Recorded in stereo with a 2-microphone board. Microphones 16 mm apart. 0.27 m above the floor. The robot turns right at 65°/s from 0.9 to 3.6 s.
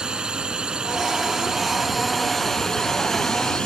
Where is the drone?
65° right (ahead or behind); by 3.7 s 65° left (ahead or behind).